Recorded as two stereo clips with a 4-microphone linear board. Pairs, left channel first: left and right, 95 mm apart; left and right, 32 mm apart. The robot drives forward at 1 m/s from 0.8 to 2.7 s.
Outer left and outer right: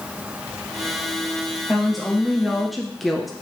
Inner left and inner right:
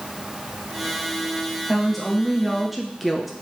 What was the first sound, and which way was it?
A woman speaking, centre (ahead or behind).